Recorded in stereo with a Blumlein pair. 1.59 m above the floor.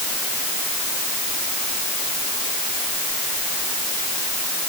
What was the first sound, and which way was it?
Only background noise.